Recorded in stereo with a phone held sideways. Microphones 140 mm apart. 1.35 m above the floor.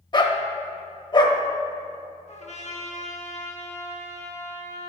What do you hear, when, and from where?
0.1 s a dog barking: 35° left (ahead or behind), 0.9 m
2.3 s a trumpet: 55° left (ahead or behind), 1.5 m